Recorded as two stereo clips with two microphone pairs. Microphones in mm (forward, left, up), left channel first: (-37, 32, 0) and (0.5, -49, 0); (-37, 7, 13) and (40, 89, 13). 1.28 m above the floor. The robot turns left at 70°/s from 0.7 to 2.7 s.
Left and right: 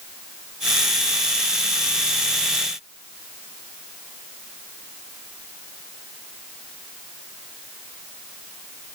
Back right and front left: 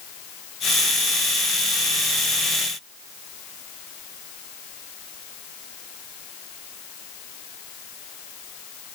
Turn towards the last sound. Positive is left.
No sound to turn to.